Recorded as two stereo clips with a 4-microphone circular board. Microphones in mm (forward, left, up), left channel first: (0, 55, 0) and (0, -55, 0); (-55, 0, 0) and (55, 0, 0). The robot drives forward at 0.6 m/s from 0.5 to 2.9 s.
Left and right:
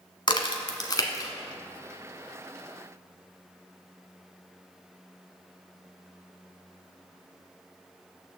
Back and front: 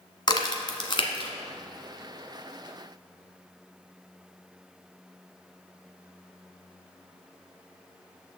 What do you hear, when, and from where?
0.3 s a crack: 135° left, 1.1 m; by 1.3 s 145° left, 1.5 m